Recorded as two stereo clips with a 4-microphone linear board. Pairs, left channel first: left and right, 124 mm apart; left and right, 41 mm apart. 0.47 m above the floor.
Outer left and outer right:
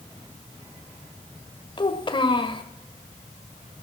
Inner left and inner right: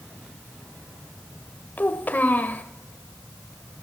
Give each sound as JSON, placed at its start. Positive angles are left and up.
{"t": 1.8, "sound": "a child speaking", "side_deg": 40, "distance_m": 1.7}